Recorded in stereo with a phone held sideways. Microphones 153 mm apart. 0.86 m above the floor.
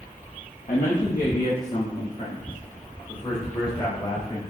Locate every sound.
0.7 s a man speaking: 50° left (ahead or behind), 1.2 m; by 4.4 s 25° left (ahead or behind), 5 m